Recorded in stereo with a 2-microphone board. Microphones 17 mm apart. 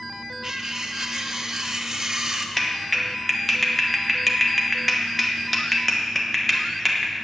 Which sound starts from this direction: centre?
A clap, at 2.6 s.